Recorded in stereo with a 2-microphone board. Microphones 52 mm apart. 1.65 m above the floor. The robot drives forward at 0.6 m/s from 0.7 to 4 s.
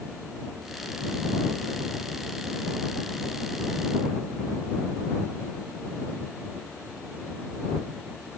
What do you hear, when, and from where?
Only background noise.